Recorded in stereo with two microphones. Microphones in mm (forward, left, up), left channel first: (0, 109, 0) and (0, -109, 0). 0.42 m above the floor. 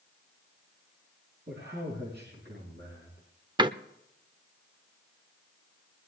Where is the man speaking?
50° right (ahead or behind), 5 m.